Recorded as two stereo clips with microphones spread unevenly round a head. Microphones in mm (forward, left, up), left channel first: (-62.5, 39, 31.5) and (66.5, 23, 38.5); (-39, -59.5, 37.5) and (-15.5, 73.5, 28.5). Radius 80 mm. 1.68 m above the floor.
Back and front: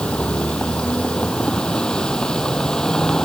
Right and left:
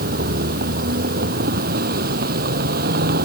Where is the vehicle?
90° left.